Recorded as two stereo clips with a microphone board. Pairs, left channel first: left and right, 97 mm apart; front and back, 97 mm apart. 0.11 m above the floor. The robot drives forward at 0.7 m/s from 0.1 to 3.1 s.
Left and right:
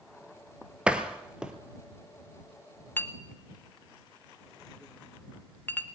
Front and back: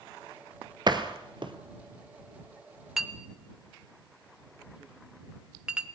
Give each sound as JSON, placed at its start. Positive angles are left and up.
{"t": 0.9, "sound": "a door slam", "azimuth_deg": -165, "distance_m": 1.7}
{"t": 3.0, "sound": "a clink", "azimuth_deg": 100, "distance_m": 1.1}